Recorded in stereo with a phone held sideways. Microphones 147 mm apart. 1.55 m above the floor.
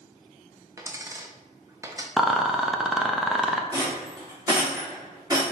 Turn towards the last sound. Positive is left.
turn(degrees=-25)  # may be behind; listen again after turning